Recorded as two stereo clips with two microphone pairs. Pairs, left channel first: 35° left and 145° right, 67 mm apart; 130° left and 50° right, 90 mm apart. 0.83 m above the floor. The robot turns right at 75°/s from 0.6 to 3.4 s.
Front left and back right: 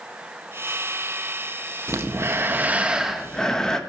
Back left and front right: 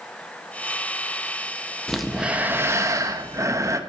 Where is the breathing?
150° right, 0.9 m; by 3.8 s 35° right, 0.9 m.